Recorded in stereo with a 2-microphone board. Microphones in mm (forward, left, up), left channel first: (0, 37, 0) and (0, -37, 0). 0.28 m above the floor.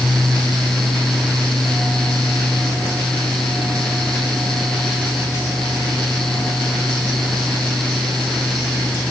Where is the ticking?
I don't hear ticking.